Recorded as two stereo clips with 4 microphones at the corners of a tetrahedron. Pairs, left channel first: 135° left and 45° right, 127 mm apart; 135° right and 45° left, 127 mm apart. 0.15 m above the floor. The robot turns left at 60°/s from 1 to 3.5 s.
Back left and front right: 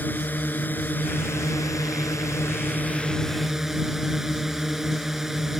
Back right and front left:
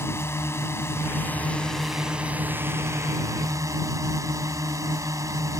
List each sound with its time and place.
0.0 s a drone: 170° right; by 5.6 s 40° left